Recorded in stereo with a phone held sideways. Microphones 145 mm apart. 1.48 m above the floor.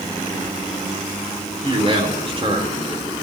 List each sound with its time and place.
1.6 s a man speaking: 40° right (ahead or behind), 3.5 m